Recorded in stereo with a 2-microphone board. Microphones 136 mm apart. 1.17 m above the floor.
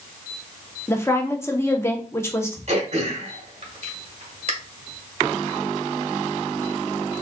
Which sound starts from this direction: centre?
A woman speaking, at 0.9 s.